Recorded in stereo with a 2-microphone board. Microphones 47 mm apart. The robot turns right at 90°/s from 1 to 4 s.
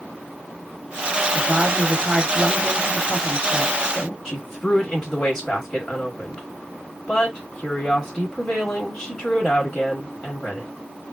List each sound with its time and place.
1.4 s a woman speaking: 20° right (ahead or behind), 1.1 m; by 4.2 s 20° left (ahead or behind), 1.1 m
4.2 s a woman speaking: 10° left (ahead or behind), 1.3 m